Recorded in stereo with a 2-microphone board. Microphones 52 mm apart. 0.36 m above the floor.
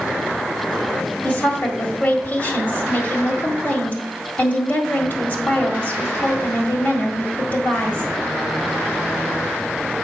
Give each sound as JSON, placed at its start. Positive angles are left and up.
{"t": 1.2, "sound": "a woman speaking", "side_deg": 40, "distance_m": 1.7}